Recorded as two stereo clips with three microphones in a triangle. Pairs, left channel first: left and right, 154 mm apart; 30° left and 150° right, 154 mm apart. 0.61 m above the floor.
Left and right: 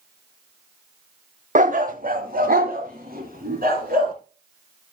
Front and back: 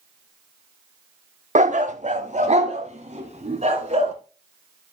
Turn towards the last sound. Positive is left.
turn(degrees=-105)